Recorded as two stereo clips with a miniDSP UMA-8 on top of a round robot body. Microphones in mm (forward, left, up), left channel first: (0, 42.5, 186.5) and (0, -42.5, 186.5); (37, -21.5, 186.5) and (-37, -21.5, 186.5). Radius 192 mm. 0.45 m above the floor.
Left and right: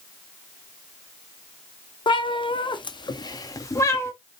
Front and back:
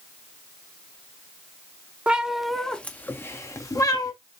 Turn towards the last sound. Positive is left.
turn(degrees=30)